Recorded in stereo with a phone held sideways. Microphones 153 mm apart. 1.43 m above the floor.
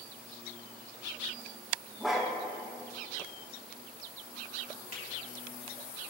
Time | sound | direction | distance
2.0 | a dog barking | centre (ahead or behind) | 1.0 m
4.9 | a finger snap | 70° left (ahead or behind) | 2.5 m